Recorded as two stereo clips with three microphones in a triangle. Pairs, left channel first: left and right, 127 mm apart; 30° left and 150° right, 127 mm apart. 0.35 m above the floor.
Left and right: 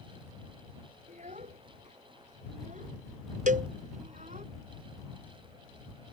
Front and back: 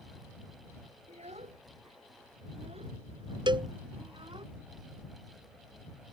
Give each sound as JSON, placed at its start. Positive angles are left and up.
{"t": 1.1, "sound": "a child speaking", "azimuth_deg": -115}
{"t": 3.5, "sound": "a cowbell", "azimuth_deg": -95}